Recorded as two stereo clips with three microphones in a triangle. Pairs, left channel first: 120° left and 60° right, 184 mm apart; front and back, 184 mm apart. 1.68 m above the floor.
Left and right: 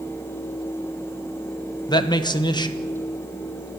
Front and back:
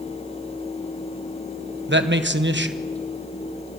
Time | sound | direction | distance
1.9 | a man speaking | 175° right | 1.3 m